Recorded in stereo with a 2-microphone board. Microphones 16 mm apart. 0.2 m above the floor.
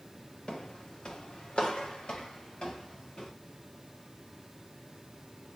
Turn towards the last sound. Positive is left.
turn(degrees=85)